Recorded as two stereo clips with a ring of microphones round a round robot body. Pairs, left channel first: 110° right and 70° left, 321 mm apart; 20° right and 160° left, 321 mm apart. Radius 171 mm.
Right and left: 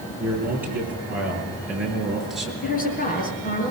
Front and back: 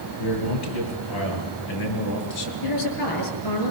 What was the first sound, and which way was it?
A man speaking, 15° right.